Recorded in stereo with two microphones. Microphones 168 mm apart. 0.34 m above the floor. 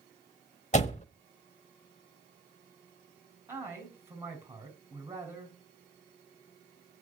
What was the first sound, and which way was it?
A door slam, 40° left (ahead or behind).